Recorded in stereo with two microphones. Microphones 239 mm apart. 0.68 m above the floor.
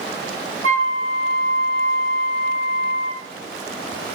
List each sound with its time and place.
0.6 s a flute: 60° right (ahead or behind), 6 m